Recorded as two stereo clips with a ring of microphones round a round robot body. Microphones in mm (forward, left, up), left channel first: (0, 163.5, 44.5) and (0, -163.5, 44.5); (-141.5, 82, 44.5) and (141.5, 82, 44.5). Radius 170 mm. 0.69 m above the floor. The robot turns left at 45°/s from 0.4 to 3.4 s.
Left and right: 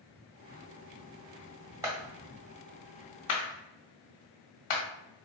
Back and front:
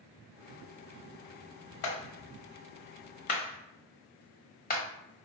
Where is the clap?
170° right, 1.4 m; by 4.8 s 120° left, 1.4 m.